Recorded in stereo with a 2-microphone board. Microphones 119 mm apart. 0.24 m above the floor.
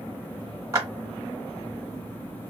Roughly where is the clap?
Right.